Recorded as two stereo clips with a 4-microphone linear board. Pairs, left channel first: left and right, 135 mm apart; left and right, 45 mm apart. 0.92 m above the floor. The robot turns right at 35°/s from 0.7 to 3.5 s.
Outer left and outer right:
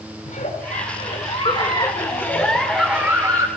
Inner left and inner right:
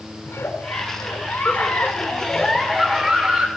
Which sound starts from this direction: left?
A giggle, at 0.2 s.